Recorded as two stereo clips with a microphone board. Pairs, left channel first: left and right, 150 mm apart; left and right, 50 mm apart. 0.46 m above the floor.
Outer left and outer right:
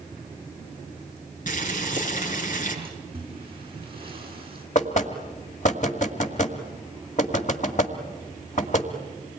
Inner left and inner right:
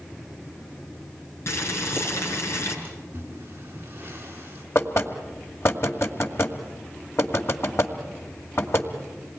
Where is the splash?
35° right (ahead or behind), 6.5 m.